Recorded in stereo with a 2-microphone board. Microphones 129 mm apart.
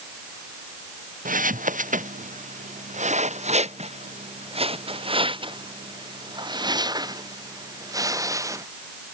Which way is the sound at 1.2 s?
80° right.